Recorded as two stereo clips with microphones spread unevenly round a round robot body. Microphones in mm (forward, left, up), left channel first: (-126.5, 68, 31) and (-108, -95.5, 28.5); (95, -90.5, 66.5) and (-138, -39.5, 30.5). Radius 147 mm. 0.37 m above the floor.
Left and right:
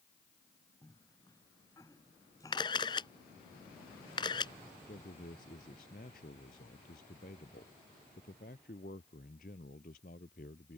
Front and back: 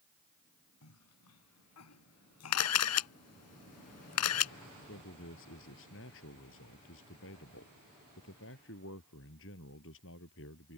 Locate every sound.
0.8 s a cough: 20° left
2.5 s a camera shutter: 20° left
4.9 s a man speaking: 35° left